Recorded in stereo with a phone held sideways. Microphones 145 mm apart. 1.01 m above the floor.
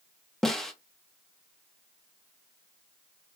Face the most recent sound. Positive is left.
turn(degrees=5)  # may be behind; listen again after turning